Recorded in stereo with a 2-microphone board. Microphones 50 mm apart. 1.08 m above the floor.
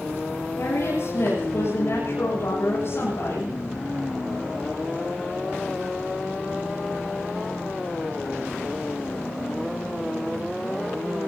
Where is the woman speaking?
60° left (ahead or behind), 8.5 m.